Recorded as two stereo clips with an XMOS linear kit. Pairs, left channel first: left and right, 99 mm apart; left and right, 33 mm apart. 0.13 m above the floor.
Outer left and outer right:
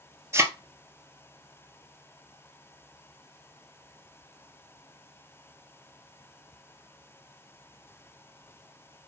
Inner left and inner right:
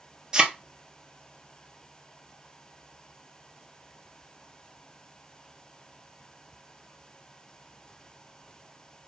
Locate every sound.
0.3 s a thud: 30° right (ahead or behind), 0.8 m